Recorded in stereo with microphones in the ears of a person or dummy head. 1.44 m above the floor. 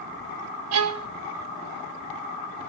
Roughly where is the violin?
Right.